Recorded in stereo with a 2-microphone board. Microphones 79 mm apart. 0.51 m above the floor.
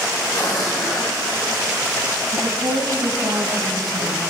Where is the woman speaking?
70° right (ahead or behind), 3.5 m.